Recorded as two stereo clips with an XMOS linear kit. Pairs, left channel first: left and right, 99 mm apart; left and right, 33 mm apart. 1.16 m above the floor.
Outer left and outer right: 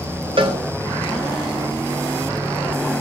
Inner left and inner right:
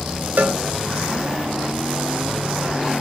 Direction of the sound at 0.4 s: 60° right (ahead or behind).